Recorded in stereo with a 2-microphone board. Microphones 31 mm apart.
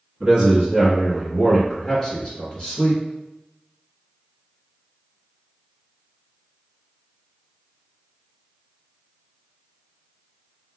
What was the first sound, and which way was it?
A man speaking, 25° right (ahead or behind).